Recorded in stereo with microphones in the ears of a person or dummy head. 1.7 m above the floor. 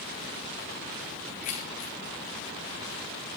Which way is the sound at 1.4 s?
40° left (ahead or behind).